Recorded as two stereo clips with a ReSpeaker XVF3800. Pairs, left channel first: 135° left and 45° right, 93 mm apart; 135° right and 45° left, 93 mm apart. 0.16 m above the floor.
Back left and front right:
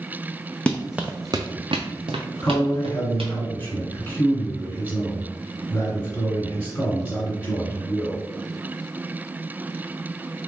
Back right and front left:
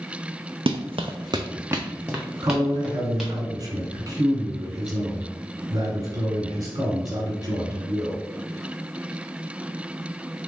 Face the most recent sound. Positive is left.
turn(degrees=70)